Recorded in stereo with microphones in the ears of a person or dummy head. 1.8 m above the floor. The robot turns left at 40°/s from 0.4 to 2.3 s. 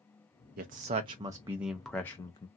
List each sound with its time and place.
0.6 s a man speaking: 130° right, 0.5 m; by 2.5 s 160° left, 0.5 m